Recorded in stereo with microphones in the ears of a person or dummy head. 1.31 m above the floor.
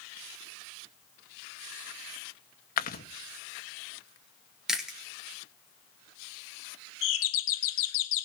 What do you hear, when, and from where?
2.8 s chewing: 50° left (ahead or behind), 1.0 m
4.7 s chewing: centre (ahead or behind), 1.9 m
7.0 s a doorbell: 70° left (ahead or behind), 1.6 m